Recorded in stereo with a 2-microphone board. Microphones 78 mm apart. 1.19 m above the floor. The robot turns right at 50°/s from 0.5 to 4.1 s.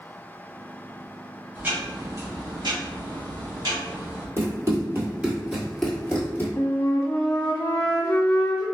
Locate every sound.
1.6 s ticking: 165° right, 1.4 m; by 4.3 s 35° right, 1.4 m
4.4 s running footsteps: 45° right (ahead or behind), 1.9 m; by 6.5 s 30° left (ahead or behind), 1.4 m
6.6 s a flute: 50° left (ahead or behind), 0.9 m